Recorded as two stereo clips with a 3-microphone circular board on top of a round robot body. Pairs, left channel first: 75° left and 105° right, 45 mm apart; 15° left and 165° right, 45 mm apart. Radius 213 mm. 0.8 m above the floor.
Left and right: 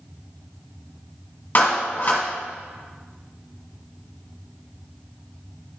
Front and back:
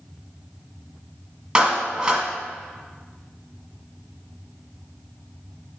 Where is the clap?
125° left, 1.4 m.